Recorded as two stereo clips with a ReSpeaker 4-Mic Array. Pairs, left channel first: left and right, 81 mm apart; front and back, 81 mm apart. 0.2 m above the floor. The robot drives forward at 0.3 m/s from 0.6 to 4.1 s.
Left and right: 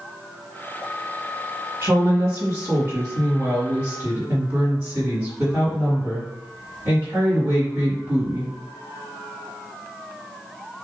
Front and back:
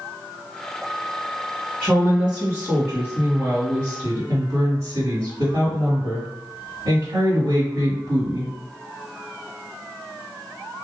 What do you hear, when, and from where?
1.8 s a woman speaking: 120° right, 1.8 m; by 8.5 s 140° right, 2 m